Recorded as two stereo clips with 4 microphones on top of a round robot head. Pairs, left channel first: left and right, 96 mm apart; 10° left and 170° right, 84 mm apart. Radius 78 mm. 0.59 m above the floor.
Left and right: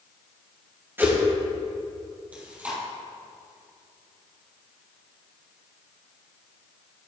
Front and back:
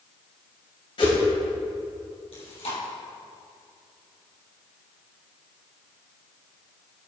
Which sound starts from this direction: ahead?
Chewing, at 2.3 s.